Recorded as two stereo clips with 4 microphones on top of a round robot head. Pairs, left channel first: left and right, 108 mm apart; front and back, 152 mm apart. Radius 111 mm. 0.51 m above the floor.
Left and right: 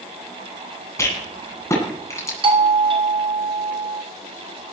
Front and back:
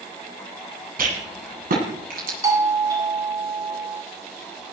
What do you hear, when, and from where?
1.0 s a rattle: 155° left, 9 m
2.4 s a doorbell: 115° right, 2.5 m